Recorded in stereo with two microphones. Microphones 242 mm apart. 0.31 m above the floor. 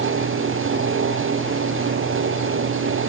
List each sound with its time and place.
Only background noise.